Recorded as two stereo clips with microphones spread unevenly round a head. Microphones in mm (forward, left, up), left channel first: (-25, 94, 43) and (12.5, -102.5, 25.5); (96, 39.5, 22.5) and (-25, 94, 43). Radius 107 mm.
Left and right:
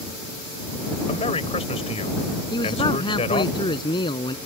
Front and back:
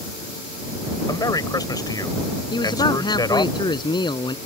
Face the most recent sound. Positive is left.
turn(degrees=30)